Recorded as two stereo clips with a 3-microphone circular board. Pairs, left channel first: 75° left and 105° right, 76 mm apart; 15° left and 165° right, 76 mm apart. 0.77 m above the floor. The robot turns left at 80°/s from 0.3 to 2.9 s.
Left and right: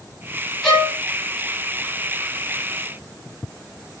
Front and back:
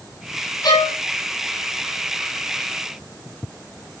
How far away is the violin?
About 8 m.